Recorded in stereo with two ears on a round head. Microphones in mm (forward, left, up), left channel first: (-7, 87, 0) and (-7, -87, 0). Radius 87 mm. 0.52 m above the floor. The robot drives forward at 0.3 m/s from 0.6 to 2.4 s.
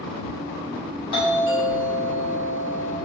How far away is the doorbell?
About 2 m.